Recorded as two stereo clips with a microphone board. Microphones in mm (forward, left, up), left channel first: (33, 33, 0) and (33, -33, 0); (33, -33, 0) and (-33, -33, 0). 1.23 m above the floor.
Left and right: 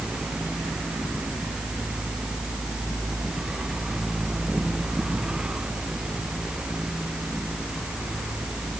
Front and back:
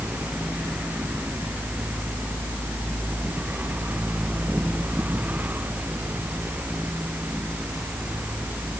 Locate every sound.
Only background noise.